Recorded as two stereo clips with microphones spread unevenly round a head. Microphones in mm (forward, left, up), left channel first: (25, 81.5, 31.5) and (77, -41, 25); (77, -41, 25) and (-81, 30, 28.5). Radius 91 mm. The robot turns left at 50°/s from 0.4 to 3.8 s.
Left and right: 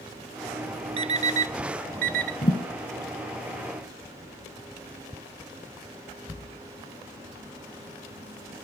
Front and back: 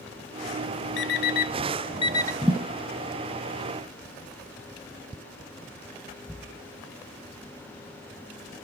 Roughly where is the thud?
Left.